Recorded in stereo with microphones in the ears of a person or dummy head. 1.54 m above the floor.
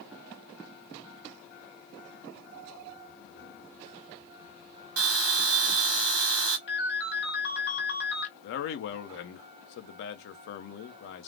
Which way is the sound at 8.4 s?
55° left (ahead or behind).